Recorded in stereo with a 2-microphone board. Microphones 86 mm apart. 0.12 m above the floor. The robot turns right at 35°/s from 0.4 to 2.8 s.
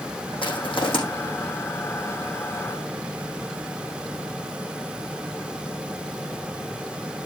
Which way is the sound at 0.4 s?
75° left (ahead or behind).